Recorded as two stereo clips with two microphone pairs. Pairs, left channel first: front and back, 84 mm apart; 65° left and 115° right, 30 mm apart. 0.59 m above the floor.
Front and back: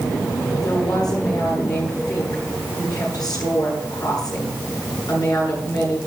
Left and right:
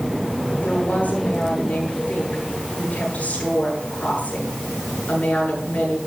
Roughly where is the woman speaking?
Ahead left.